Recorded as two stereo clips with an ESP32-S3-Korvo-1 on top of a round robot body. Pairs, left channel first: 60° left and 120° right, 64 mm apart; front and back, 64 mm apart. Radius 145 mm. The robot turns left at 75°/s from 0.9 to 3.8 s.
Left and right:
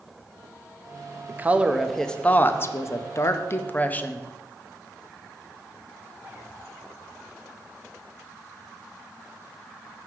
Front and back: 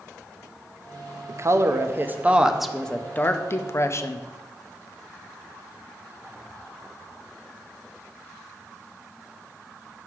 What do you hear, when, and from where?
1.3 s a woman speaking: 165° right, 0.7 m; by 4.3 s 5° left, 0.7 m